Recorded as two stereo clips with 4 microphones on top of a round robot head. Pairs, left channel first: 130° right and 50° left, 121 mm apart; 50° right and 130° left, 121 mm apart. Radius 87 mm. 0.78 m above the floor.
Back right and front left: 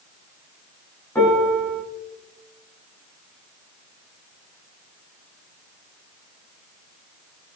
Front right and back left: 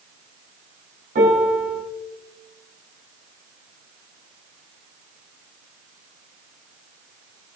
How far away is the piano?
About 4.5 m.